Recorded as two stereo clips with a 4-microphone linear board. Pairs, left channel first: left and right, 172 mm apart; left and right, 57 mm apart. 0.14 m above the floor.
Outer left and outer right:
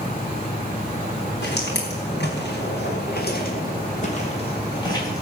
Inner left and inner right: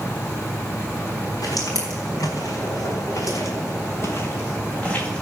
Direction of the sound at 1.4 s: 85° left.